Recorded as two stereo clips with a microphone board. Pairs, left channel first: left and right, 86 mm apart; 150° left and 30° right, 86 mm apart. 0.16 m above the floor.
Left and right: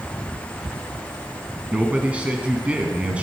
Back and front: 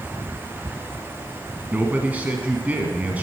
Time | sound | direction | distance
1.7 | a man speaking | 50° right | 1.3 m